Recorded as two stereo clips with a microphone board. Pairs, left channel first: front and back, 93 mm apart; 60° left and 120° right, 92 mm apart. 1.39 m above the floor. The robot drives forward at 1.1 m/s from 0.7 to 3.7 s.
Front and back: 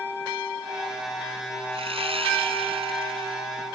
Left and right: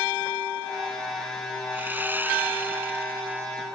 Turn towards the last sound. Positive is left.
turn(degrees=170)